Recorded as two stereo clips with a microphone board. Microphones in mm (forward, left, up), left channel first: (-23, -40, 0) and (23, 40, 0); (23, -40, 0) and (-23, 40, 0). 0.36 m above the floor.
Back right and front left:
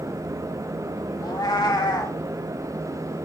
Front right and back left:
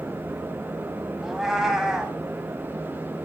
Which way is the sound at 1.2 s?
155° right.